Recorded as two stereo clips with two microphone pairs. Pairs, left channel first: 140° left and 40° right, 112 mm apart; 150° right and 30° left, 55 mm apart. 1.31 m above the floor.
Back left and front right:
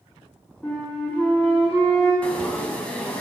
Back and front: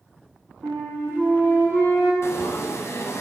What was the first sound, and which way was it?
A flute, 60° left.